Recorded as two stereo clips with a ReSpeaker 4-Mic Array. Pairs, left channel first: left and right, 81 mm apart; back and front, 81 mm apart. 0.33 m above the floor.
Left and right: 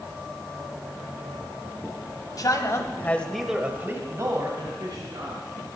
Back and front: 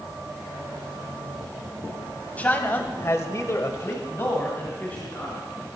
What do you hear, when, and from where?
2.4 s a man speaking: 115° left, 2 m; by 5.4 s 110° right, 3.5 m